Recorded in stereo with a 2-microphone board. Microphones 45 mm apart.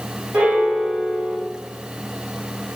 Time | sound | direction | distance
0.3 | a piano | 40° right (ahead or behind) | 1.8 m